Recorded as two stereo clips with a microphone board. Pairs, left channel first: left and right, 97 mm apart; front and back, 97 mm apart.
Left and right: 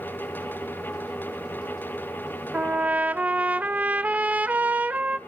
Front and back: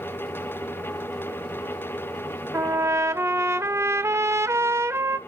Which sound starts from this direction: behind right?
A trumpet, at 2.5 s.